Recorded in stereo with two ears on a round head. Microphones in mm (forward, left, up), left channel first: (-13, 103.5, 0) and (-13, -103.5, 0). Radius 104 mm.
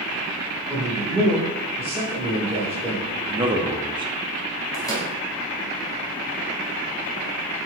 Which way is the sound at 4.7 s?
15° left (ahead or behind).